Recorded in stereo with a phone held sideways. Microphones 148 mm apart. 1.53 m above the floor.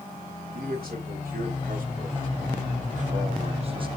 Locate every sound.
0.6 s a man speaking: 85° right, 3 m; by 3.9 s 35° right (ahead or behind), 1.2 m